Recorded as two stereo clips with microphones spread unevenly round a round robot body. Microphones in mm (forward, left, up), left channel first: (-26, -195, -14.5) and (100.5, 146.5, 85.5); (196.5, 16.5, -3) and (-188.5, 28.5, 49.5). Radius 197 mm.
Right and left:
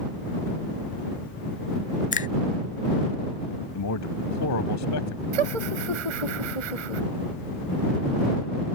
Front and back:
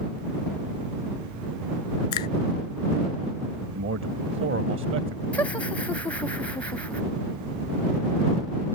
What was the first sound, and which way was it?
A finger snap, 45° right.